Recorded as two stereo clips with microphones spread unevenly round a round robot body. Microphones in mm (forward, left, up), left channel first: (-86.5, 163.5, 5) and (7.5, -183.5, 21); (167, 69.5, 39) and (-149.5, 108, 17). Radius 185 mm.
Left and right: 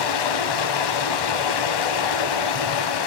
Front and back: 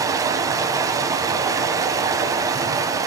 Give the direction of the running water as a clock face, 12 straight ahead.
9 o'clock.